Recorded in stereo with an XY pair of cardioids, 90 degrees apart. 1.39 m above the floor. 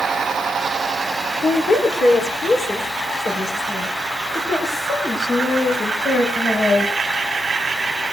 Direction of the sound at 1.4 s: 50° left.